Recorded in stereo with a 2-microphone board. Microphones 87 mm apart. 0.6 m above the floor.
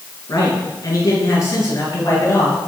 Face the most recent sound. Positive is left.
turn(degrees=35)  # may be behind; listen again after turning